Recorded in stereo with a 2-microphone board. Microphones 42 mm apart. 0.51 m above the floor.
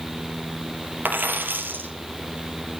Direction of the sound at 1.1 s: 55° right (ahead or behind).